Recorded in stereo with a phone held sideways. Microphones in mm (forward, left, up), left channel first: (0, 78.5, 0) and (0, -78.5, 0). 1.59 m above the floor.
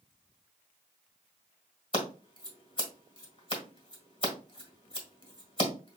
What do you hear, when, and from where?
1.9 s scissors: 35° left (ahead or behind), 1.6 m